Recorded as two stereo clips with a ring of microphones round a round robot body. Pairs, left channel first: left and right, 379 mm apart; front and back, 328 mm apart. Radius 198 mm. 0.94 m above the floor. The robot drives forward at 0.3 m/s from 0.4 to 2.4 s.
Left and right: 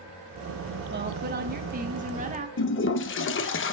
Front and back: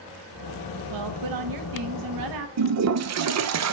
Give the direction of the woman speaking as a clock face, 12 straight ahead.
5 o'clock.